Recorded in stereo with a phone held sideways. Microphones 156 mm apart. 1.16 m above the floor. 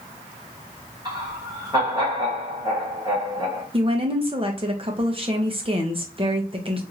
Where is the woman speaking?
35° right (ahead or behind), 1.0 m.